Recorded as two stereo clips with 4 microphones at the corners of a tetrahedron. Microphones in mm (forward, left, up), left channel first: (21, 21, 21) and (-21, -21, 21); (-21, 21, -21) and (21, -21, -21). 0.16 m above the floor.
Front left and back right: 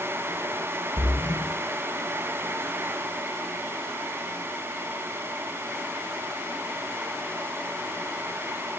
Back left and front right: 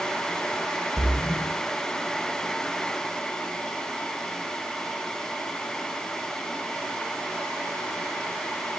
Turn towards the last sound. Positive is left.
turn(degrees=75)